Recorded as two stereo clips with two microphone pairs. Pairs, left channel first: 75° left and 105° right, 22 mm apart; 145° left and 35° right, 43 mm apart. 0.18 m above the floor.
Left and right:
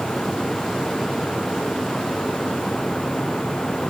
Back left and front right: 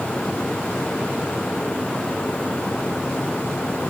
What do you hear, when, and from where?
Only background noise.